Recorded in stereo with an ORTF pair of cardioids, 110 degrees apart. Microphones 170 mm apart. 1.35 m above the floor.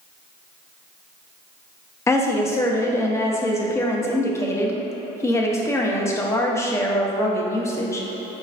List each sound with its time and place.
2.1 s a woman speaking: 15° left, 0.5 m